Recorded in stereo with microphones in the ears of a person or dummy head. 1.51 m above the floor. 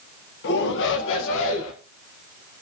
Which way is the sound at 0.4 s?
60° left (ahead or behind).